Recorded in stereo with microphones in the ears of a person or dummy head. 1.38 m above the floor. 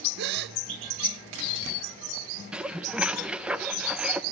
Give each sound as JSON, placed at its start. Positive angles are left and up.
{"t": 0.2, "sound": "a gasp", "side_deg": -50, "distance_m": 0.7}
{"t": 2.5, "sound": "dishes clattering", "side_deg": -10, "distance_m": 0.6}